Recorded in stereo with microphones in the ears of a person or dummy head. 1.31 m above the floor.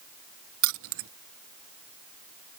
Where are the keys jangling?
65° right (ahead or behind).